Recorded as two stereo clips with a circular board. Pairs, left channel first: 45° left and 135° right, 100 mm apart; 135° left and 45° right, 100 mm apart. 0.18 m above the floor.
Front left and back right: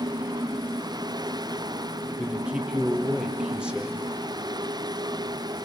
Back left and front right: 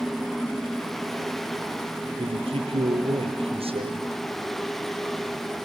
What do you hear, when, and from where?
2.2 s a man speaking: 55° right, 4.5 m